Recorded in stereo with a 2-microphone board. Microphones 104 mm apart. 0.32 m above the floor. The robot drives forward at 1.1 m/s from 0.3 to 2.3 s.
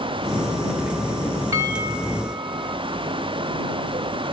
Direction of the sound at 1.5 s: 25° right (ahead or behind).